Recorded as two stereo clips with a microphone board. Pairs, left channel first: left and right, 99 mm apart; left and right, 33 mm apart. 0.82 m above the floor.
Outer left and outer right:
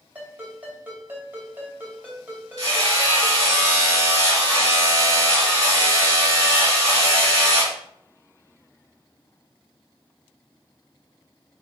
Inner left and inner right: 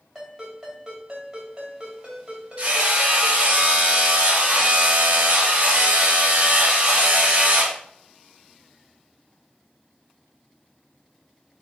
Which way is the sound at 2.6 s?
35° right (ahead or behind).